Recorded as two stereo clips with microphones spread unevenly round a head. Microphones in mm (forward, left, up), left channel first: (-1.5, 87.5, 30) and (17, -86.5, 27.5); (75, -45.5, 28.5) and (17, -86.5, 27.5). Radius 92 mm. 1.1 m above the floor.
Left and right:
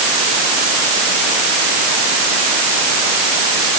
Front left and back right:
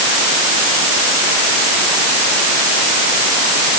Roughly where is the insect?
No insect in this recording.